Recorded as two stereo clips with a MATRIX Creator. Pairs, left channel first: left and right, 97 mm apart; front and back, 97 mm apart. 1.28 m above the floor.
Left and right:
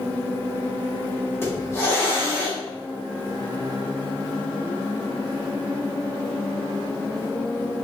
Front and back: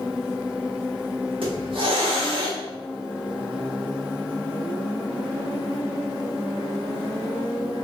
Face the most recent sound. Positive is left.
turn(degrees=155)